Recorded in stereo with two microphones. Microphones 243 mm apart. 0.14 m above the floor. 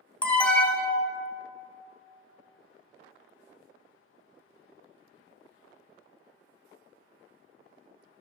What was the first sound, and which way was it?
An alarm, 5° left (ahead or behind).